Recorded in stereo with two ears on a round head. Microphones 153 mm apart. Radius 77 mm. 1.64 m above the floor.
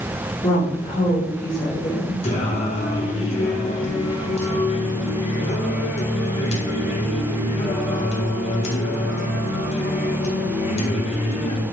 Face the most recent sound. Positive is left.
turn(degrees=40)  # may be behind; listen again after turning